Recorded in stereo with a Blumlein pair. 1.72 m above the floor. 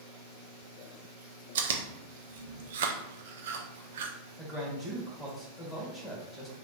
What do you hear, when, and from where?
1.6 s chewing: 60° right, 0.6 m
4.4 s a man speaking: straight ahead, 1.8 m